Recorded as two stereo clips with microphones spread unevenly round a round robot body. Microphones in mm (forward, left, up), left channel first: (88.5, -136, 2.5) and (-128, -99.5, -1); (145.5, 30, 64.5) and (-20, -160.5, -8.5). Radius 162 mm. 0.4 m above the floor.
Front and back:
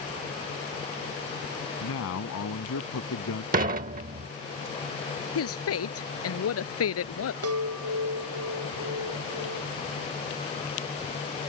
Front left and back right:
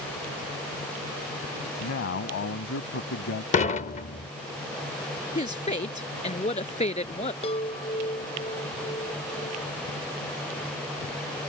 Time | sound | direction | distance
1.8 | a man speaking | 15° left | ?
3.5 | dishes clattering | 120° left | ?
5.3 | a woman speaking | 15° right | ?
7.4 | a chime | 125° left | ?